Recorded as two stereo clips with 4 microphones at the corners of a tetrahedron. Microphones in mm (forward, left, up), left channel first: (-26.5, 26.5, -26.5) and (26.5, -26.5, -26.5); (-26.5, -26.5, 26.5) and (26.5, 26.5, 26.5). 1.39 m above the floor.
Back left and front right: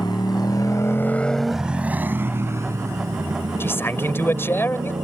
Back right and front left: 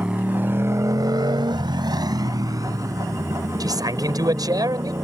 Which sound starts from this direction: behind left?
A motorcycle, at 0.0 s.